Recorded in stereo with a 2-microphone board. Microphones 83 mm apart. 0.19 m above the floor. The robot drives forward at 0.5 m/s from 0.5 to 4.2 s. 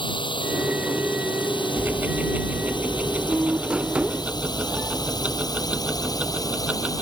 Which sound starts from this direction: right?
Ticking, at 1.8 s.